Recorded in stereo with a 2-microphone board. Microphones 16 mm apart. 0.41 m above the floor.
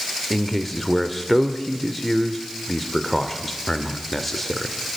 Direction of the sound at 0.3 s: 10° left (ahead or behind).